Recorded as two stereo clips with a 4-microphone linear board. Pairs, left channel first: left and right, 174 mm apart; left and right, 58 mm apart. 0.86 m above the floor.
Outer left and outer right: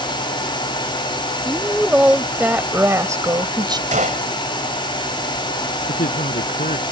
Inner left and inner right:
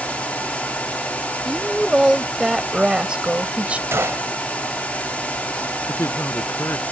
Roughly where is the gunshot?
Right.